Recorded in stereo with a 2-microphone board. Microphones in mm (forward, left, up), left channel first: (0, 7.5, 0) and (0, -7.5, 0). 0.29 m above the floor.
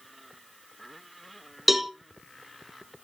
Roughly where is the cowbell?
Centre.